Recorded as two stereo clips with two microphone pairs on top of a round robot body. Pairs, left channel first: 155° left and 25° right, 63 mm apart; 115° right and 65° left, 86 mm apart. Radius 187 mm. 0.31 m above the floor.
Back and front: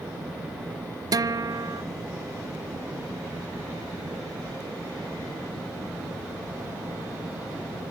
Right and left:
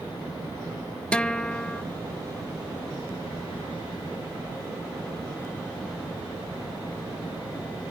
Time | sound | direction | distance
1.1 | a guitar | 35° right | 0.6 m